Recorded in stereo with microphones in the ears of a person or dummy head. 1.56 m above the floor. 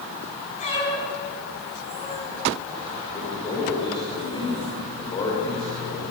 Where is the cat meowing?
40° left (ahead or behind), 7 m; by 2.3 s 35° left (ahead or behind), 5 m.